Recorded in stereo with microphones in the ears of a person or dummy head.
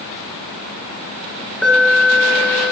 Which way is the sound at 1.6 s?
5° right (ahead or behind).